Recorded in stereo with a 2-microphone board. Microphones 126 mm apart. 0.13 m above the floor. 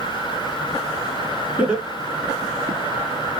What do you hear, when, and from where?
1.6 s laughter: 10° right (ahead or behind), 1.3 m; by 2.8 s 35° left (ahead or behind), 1.4 m